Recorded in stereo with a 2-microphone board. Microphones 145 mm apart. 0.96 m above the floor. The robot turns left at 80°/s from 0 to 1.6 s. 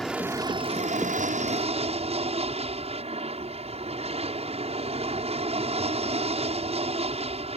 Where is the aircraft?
5° left; by 7.6 s 125° right.